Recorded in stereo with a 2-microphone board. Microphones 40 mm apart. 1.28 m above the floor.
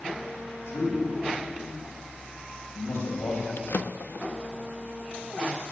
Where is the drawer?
60° left (ahead or behind), 0.9 m.